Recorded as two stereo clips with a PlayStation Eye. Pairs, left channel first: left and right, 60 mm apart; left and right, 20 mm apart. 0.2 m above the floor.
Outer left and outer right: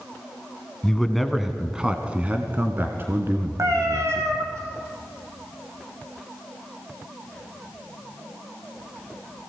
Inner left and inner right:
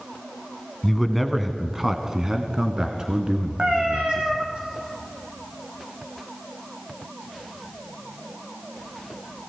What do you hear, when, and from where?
0.8 s a man speaking: 10° left (ahead or behind), 1.5 m; by 4.6 s 55° right (ahead or behind), 2.5 m
3.6 s a cat meowing: 55° right (ahead or behind), 3.5 m